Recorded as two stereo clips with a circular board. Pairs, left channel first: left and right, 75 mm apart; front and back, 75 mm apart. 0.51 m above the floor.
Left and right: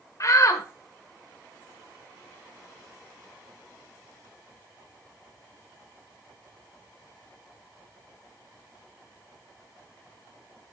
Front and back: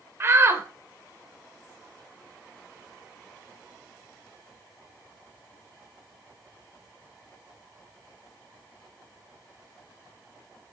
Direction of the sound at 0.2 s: 125° left.